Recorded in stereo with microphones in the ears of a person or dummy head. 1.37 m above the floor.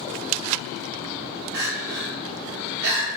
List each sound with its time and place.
1.5 s crying: 60° right (ahead or behind), 1.1 m